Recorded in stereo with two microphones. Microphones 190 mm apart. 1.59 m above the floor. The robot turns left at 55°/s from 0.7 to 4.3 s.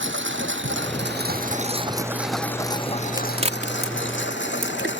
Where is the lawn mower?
80° right; by 5.0 s 75° left (ahead or behind).